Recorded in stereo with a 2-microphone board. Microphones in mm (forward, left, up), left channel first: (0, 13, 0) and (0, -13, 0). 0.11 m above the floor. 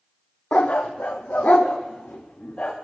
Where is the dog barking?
55° left (ahead or behind), 1.2 m; by 2.7 s 45° left (ahead or behind), 2 m.